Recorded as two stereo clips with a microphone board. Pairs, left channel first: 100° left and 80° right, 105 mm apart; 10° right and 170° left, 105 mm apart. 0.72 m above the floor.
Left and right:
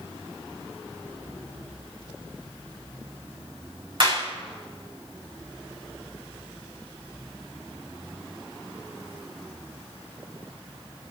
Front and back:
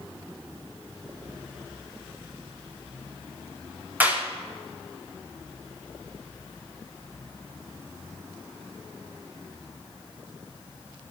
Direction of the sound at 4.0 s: 115° right.